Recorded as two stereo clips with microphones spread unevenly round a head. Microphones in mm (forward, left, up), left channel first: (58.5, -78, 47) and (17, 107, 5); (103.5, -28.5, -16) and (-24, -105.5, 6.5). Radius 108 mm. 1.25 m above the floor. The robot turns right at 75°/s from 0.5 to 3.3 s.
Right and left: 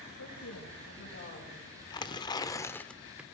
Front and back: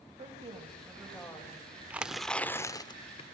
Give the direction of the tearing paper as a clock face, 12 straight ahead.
3 o'clock.